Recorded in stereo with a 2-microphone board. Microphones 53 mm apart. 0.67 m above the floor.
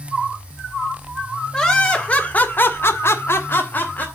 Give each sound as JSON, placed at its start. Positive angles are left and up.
{"t": 1.5, "sound": "laughter", "side_deg": 15, "distance_m": 2.5}